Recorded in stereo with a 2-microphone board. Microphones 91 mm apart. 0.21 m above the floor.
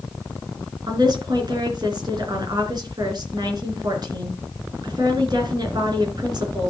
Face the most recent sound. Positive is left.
turn(degrees=-50)  # may be behind; listen again after turning